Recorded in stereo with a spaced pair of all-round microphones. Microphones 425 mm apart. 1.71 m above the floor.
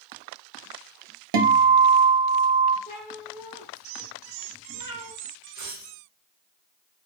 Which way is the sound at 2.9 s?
25° left (ahead or behind).